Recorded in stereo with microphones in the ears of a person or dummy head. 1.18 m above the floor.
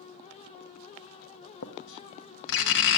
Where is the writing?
60° left (ahead or behind), 1.1 m.